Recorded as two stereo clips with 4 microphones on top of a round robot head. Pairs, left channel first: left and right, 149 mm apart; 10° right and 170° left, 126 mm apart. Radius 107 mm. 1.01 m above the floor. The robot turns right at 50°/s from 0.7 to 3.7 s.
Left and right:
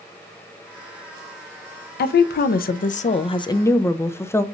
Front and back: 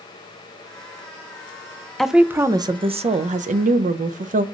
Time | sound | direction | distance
2.0 | a woman speaking | 80° left | 0.5 m